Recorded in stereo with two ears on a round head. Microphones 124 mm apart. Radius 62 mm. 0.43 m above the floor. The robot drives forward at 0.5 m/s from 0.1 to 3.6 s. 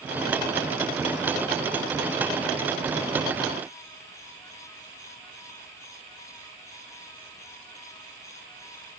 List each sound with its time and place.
Only background noise.